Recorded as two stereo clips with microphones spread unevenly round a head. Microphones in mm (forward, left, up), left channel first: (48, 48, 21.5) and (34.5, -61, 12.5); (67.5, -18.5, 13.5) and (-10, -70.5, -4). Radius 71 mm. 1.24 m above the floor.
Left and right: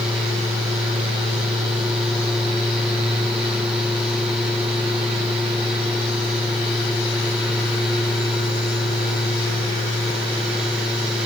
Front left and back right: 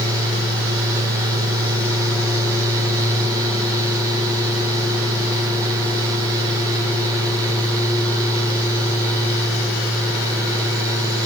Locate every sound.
Only background noise.